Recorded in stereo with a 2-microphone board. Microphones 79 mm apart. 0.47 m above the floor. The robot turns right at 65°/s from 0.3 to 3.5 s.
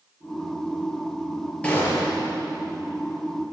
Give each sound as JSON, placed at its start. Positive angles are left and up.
{"t": 1.6, "sound": "a gunshot", "azimuth_deg": 15, "distance_m": 5.0}